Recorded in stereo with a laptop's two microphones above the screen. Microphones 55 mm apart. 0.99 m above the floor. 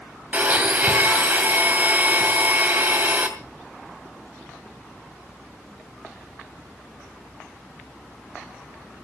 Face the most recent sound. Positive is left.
turn(degrees=-30)  # may be behind; listen again after turning